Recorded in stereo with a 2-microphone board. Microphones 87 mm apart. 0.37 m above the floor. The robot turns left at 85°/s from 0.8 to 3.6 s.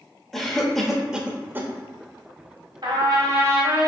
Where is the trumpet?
85° right, 1.5 m; by 3.9 s 150° right, 1.5 m.